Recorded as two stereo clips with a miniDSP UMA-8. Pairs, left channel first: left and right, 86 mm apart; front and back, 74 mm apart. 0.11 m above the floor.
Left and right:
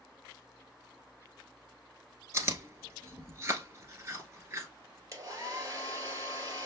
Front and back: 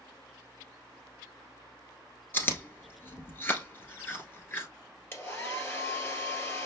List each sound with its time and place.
2.3 s chewing: 50° right, 1.1 m
5.1 s a hair dryer: 50° right, 1.8 m